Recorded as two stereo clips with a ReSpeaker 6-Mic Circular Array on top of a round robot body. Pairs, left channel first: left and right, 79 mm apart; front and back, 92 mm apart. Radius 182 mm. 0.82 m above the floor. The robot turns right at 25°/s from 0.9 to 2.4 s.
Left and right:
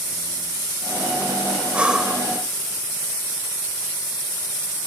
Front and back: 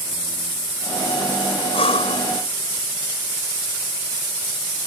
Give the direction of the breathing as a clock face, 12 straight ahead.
1 o'clock.